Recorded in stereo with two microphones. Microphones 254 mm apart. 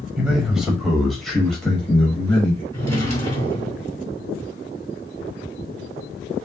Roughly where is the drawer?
Right.